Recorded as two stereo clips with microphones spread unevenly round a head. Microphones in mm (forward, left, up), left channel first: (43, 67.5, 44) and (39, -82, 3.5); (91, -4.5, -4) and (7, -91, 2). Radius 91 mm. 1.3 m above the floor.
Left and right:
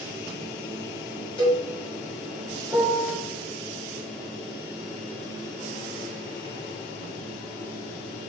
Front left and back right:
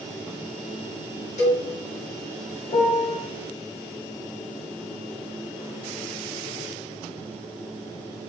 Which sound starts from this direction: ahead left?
A cowbell, at 1.4 s.